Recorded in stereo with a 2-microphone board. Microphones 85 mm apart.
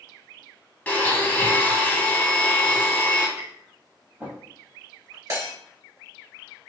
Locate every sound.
0.9 s a blender: 20° left (ahead or behind), 0.8 m
3.4 s tapping: 20° right (ahead or behind), 1.5 m
5.3 s breaking glass: 40° right (ahead or behind), 1.9 m